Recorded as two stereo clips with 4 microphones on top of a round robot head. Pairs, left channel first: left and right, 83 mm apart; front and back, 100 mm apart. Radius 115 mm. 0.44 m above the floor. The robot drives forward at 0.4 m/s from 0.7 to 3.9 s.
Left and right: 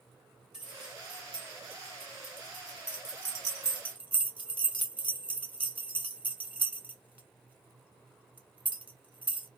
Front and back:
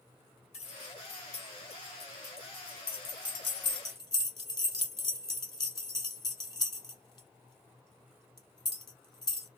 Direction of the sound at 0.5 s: 5° right.